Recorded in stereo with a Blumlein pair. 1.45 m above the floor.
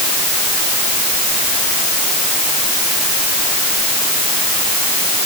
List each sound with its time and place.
Only background noise.